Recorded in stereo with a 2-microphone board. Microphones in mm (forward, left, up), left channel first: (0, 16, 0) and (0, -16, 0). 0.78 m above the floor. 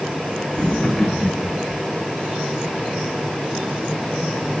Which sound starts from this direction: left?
Laughter, at 0.5 s.